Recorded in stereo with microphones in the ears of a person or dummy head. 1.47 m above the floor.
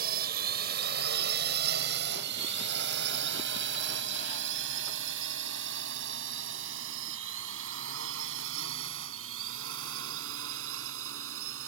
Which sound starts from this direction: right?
A drone, at 0.0 s.